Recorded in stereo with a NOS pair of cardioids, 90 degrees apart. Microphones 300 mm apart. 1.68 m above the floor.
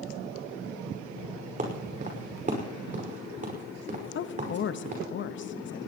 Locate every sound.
1.6 s footsteps: 25° right, 5.5 m
4.2 s a woman speaking: 40° left, 0.7 m